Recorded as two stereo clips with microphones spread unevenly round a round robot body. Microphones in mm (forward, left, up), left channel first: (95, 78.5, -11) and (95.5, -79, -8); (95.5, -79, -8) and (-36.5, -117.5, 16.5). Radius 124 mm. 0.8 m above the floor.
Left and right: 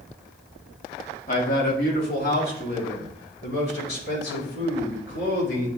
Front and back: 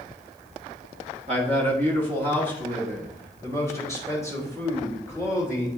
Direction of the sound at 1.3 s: 135° left.